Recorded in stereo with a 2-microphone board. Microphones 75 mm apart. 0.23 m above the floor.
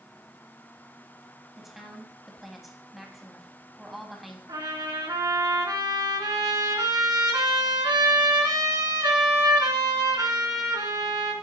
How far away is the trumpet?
About 2.5 m.